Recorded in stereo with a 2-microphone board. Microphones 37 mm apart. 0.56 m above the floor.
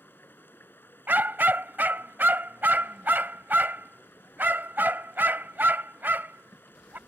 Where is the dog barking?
60° right (ahead or behind).